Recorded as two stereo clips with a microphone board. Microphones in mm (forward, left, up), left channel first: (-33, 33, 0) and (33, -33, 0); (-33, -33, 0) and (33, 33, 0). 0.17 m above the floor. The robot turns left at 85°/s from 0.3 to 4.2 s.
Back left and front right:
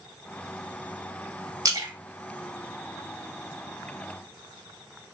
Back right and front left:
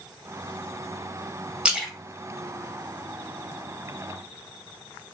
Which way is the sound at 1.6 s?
25° right.